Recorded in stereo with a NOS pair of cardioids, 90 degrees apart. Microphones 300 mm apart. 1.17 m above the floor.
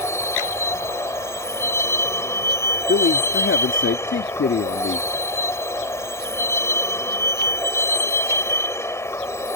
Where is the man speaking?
40° left.